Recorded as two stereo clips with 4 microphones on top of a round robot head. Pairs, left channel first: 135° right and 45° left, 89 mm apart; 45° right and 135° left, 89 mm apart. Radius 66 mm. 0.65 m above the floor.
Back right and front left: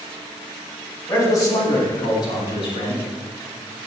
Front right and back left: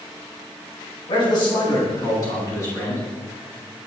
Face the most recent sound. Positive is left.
turn(degrees=-100)